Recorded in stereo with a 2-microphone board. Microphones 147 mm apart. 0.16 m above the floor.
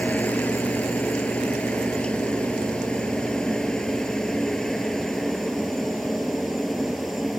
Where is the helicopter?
10° left (ahead or behind); by 7.4 s centre (ahead or behind).